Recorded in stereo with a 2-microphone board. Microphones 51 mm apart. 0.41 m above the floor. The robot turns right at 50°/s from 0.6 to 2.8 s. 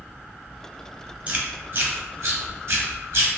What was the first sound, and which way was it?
Chewing, 25° right (ahead or behind).